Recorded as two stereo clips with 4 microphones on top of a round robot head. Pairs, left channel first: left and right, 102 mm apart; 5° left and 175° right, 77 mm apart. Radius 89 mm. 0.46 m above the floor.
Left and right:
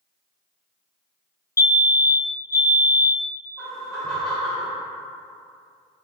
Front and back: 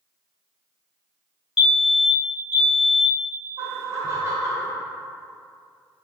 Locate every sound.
1.6 s a fire alarm: 105° left, 2.0 m
3.6 s laughter: 175° left, 1.0 m